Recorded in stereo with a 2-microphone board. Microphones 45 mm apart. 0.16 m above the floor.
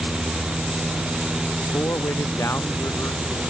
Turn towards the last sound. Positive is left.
turn(degrees=80)